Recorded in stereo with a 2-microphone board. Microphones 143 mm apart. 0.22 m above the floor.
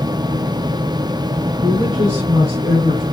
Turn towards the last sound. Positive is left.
turn(degrees=-35)  # may be behind; listen again after turning